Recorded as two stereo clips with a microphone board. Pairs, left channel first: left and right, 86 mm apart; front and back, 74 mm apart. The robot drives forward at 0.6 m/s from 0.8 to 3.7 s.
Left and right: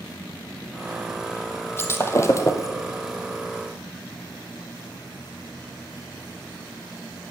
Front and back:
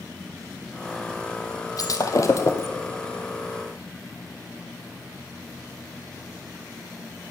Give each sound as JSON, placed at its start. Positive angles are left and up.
{"t": 1.8, "sound": "breaking glass", "azimuth_deg": 30, "distance_m": 1.4}